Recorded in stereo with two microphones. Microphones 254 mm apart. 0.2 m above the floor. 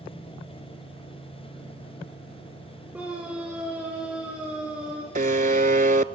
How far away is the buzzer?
About 0.6 m.